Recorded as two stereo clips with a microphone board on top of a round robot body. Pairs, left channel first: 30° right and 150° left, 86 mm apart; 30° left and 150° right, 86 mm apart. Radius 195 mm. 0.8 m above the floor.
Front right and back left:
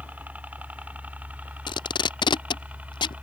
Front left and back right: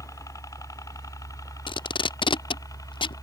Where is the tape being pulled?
5° left.